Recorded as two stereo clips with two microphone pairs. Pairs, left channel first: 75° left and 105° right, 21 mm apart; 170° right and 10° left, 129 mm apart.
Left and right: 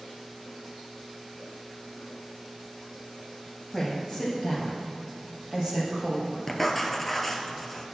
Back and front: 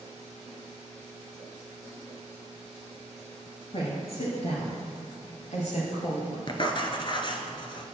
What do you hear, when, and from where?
3.7 s a woman speaking: 160° left, 2 m; by 6.4 s 150° right, 3 m
6.5 s writing: 150° left, 0.9 m